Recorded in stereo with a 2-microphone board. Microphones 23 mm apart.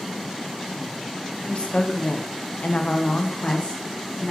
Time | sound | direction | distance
1.5 | a woman speaking | 55° left (ahead or behind) | 2 m